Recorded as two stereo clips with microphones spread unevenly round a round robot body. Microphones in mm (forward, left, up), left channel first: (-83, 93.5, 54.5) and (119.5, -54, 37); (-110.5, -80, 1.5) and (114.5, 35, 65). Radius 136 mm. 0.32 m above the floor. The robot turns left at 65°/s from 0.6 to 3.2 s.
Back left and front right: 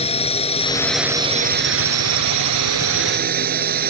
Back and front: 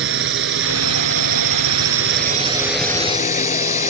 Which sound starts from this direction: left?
A drone, at 0.0 s.